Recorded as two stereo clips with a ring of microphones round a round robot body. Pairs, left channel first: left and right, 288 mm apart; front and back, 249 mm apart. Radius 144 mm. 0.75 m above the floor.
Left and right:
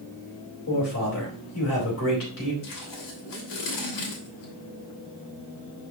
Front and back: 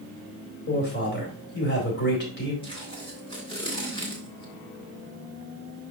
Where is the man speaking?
45° left, 4 m.